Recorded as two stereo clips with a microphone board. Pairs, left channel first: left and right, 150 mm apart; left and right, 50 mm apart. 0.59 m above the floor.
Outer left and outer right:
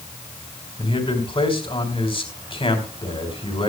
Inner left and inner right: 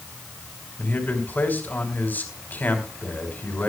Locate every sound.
0.8 s a man speaking: 35° left (ahead or behind), 3.5 m